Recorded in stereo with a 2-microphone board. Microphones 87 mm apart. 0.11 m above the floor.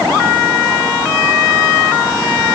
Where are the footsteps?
No footsteps in this recording.